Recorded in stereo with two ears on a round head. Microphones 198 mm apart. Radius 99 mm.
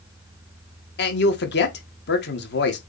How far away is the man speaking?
About 1.9 m.